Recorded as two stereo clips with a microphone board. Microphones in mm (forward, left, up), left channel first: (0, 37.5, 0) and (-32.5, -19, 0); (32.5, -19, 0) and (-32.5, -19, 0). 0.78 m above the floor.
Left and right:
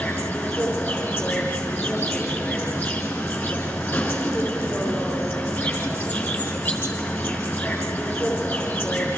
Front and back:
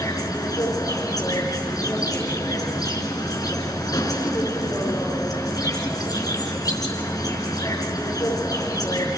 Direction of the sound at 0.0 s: 5° left.